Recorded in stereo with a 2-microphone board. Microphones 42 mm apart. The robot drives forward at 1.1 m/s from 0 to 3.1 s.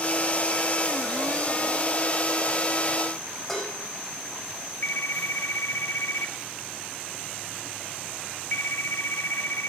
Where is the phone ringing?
70° left (ahead or behind), 1.3 m.